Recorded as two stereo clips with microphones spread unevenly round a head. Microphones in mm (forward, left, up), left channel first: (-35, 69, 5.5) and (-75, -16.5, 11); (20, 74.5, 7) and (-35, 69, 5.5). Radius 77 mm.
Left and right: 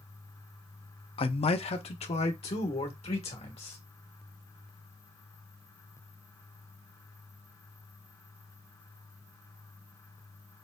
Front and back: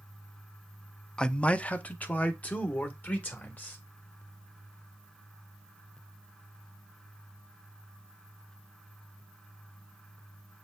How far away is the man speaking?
About 0.5 m.